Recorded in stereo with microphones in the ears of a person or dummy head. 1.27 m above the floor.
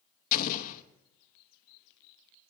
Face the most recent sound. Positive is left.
turn(degrees=45)  # may be behind; listen again after turning